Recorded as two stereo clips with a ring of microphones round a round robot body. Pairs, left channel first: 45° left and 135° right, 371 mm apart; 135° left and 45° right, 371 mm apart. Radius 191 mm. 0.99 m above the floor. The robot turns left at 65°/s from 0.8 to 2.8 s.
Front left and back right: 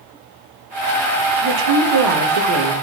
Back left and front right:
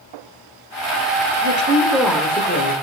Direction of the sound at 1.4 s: 95° right.